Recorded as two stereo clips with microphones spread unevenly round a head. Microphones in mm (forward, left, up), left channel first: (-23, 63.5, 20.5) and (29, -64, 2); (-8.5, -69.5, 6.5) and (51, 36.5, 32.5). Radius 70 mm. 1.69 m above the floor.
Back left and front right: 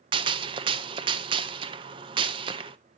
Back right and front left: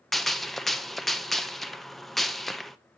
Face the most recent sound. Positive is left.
turn(degrees=-15)